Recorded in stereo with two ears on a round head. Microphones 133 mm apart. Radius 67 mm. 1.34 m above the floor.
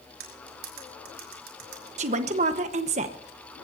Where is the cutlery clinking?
70° right (ahead or behind), 4 m.